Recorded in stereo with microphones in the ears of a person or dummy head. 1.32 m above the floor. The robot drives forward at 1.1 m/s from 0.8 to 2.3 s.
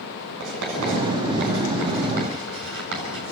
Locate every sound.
0.4 s writing: 75° right (ahead or behind), 7.5 m; by 3.3 s 65° right (ahead or behind), 8 m